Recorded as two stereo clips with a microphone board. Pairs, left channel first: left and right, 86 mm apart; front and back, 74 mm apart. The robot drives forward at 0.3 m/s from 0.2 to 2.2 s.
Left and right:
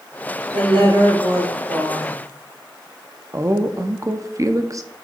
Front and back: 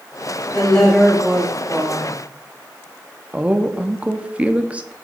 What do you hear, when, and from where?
0.5 s a woman speaking: 80° right, 3.5 m; by 2.2 s 90° right, 3.5 m
3.3 s a woman speaking: 115° right, 0.7 m